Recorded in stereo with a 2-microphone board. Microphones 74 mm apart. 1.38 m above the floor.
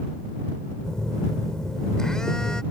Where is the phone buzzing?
5° left (ahead or behind).